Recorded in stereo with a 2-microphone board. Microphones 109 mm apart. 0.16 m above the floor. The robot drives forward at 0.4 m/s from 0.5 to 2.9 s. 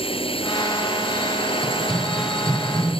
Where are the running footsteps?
Centre (ahead or behind); by 3.0 s 5° right (ahead or behind).